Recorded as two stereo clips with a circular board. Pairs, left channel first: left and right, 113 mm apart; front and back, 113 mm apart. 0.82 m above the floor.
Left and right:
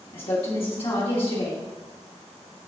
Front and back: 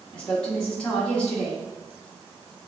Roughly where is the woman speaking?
Left.